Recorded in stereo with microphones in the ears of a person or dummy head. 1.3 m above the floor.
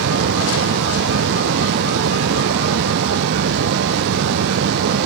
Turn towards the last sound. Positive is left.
turn(degrees=-65)  # may be behind; listen again after turning